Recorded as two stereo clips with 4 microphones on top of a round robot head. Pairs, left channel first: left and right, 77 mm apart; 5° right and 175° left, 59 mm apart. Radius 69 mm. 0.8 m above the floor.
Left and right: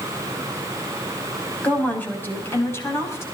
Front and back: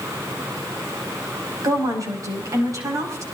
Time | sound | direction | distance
1.6 | a woman speaking | 160° left | 5 m